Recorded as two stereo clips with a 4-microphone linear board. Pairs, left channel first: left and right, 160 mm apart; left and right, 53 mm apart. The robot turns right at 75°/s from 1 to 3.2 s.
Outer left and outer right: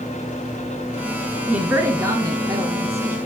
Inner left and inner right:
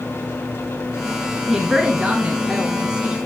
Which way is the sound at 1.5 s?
5° right (ahead or behind).